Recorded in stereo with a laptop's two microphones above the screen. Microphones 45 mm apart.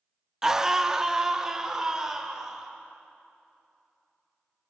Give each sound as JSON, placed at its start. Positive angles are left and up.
{"t": 0.4, "sound": "a scream", "side_deg": -15, "distance_m": 0.7}